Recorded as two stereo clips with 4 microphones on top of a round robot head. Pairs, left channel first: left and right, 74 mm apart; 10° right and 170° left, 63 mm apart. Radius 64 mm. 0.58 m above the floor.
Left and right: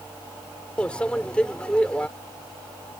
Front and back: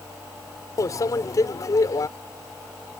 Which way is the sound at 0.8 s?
15° left.